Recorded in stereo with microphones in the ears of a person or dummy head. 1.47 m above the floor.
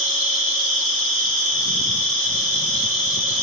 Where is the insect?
40° right (ahead or behind), 5 m.